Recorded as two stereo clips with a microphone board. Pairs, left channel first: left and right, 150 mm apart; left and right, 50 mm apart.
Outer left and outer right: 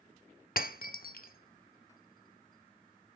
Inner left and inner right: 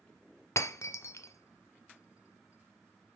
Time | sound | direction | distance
0.6 | breaking glass | 75° left (ahead or behind) | 0.6 m